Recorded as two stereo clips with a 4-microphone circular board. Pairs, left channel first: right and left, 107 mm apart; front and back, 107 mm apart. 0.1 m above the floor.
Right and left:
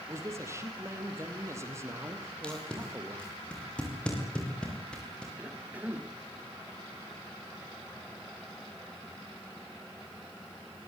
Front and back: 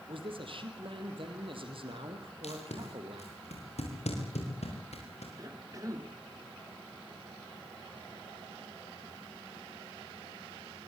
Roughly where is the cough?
Behind left.